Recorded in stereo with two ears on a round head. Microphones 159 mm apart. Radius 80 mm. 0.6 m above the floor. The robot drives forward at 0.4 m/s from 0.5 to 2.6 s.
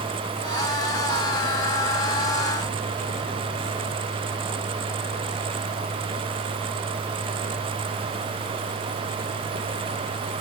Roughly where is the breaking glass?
No breaking glass in this recording.